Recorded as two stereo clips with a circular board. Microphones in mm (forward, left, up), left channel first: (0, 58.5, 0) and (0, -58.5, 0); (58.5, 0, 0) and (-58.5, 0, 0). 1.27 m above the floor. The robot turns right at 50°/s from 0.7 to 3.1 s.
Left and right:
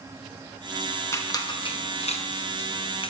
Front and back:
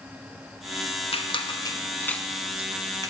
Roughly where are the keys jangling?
I don't hear keys jangling.